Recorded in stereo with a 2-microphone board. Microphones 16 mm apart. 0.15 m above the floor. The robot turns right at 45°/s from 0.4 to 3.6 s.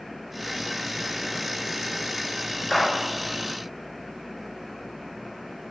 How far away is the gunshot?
About 0.8 m.